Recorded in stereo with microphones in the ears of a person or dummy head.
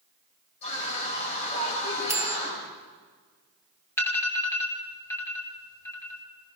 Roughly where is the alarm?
Centre.